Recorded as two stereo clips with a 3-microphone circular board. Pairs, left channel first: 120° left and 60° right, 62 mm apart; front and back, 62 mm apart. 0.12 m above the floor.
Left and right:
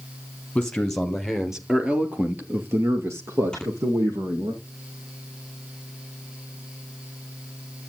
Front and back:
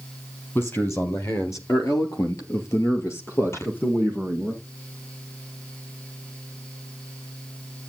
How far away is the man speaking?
About 3 m.